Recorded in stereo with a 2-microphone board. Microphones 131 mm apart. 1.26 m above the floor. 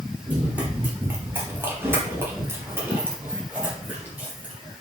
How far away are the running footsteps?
About 1.8 m.